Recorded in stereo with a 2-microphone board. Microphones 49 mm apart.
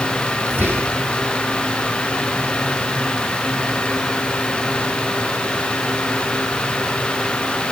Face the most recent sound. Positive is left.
turn(degrees=-50)  # may be behind; listen again after turning